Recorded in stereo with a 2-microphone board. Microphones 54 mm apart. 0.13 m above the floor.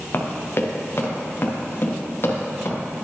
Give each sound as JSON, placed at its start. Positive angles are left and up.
{"t": 0.1, "sound": "running footsteps", "side_deg": 45, "distance_m": 2.5}